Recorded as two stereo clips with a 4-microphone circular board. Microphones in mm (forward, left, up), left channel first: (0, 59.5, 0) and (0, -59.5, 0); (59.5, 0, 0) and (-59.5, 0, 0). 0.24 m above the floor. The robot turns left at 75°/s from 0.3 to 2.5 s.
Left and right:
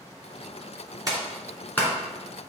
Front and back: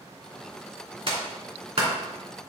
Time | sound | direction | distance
1.1 | a clap | 145° right | 2.5 m